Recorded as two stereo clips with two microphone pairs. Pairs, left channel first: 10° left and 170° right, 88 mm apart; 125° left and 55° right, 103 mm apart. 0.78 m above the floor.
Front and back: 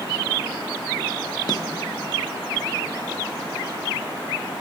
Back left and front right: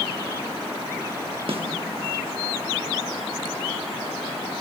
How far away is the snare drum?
About 1.0 m.